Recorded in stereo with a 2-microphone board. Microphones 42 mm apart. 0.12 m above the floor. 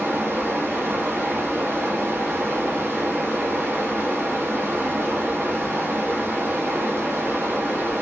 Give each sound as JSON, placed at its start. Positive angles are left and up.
{"t": 0.0, "sound": "running water", "side_deg": -70, "distance_m": 1.2}